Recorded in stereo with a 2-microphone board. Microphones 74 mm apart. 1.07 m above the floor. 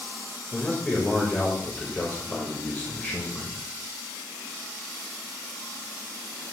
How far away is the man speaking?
About 1.6 m.